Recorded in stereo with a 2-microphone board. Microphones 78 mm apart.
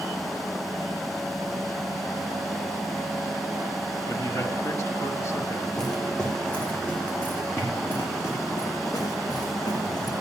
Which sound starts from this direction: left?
A man speaking, at 4.1 s.